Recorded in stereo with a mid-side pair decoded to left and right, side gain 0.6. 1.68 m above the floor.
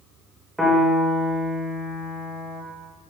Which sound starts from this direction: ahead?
A piano, at 0.6 s.